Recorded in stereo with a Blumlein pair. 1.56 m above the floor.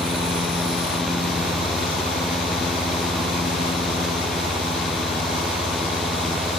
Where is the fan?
10° left, 0.8 m.